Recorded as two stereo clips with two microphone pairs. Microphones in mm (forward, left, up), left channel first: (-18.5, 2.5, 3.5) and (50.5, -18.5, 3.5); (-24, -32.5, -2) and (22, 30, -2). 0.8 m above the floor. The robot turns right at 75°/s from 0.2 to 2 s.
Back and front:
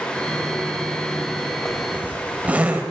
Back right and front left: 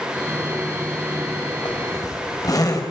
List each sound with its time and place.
1.6 s a zipper: 115° right, 4 m; by 2.8 s 85° right, 4 m